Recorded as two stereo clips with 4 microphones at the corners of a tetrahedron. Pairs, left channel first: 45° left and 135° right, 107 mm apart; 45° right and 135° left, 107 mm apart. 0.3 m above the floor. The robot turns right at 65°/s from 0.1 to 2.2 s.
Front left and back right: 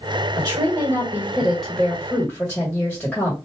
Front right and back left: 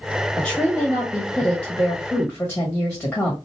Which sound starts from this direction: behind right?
A woman speaking, at 0.4 s.